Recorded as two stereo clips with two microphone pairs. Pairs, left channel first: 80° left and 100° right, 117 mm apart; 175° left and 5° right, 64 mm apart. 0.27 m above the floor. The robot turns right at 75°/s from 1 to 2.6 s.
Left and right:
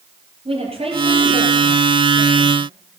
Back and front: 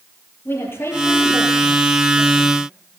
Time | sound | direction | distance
0.5 | a woman speaking | 135° right | 6.5 m